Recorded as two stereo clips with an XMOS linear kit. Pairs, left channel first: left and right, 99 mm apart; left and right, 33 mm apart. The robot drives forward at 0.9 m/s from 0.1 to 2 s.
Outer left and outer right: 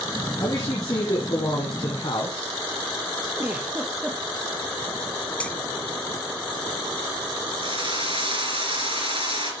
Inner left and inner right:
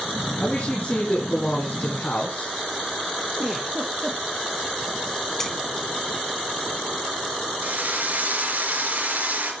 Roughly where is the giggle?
Centre.